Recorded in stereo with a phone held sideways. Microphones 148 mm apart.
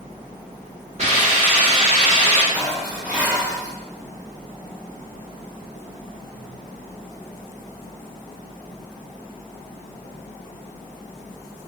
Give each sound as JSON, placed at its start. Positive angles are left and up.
{"t": 1.0, "sound": "a hiss", "side_deg": -45, "distance_m": 1.3}
{"t": 2.5, "sound": "dishes clattering", "side_deg": -5, "distance_m": 0.8}